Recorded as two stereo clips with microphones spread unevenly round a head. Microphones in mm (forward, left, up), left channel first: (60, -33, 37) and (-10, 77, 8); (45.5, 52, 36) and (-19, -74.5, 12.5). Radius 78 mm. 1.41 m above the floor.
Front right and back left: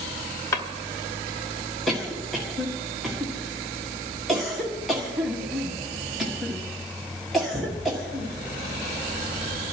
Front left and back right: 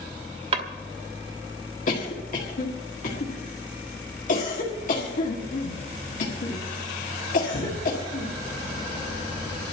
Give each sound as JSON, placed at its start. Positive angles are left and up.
{"t": 0.5, "sound": "a drawer", "azimuth_deg": -80, "distance_m": 1.0}
{"t": 1.9, "sound": "a cough", "azimuth_deg": 30, "distance_m": 1.7}